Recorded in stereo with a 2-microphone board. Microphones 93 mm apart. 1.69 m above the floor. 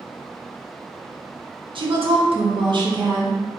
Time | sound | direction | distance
1.8 | a woman speaking | 65° right (ahead or behind) | 1.1 m